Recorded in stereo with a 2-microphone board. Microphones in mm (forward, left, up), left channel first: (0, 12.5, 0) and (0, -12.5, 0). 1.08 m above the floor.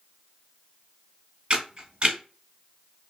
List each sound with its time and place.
1.5 s a camera shutter: 45° right (ahead or behind), 1.1 m